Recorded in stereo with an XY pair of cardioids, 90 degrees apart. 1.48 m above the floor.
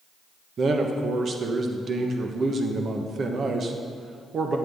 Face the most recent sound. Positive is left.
turn(degrees=-55)